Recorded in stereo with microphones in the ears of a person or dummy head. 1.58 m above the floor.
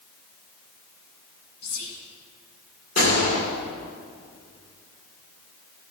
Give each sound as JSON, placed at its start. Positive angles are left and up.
{"t": 1.6, "sound": "whispering", "side_deg": 85, "distance_m": 1.7}
{"t": 3.0, "sound": "a gunshot", "side_deg": 45, "distance_m": 2.5}